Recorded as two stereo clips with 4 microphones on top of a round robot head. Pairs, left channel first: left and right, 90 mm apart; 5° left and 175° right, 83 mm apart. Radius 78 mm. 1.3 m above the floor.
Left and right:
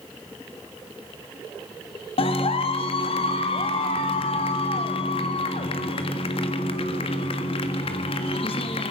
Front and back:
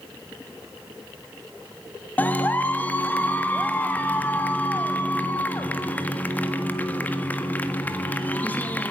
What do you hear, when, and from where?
2.2 s a clap: 70° left, 1.6 m